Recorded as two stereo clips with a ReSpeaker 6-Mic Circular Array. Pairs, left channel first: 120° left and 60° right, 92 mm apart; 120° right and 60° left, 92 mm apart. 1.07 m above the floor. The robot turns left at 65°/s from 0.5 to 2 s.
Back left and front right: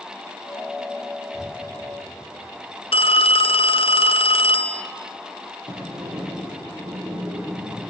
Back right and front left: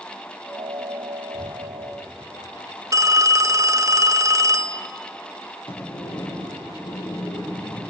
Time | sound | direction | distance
1.3 | breathing | 145° right | 2.5 m
2.9 | a phone ringing | 115° left | 0.6 m
5.7 | a sliding door | 95° right | 7 m